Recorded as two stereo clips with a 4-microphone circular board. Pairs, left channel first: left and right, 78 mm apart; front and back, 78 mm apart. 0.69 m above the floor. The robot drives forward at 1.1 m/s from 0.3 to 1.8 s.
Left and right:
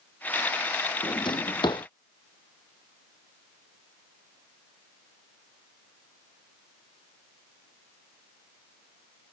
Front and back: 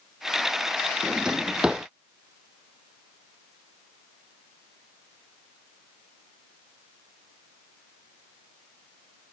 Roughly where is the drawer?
Left.